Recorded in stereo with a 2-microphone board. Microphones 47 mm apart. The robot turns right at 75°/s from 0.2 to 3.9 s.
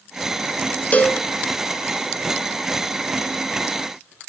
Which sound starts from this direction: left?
A cowbell, at 0.9 s.